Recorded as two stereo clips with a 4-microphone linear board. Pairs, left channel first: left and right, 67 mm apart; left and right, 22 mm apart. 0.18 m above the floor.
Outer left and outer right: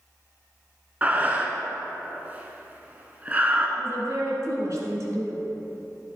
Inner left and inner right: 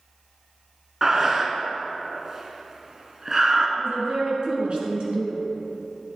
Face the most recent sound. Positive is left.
turn(degrees=-55)  # may be behind; listen again after turning